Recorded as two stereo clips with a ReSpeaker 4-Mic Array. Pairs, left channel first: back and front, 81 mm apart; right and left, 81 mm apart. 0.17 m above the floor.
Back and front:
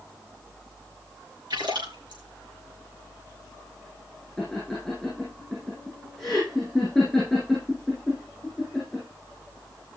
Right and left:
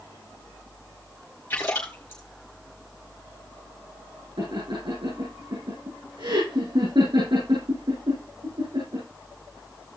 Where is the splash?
25° right, 4 m.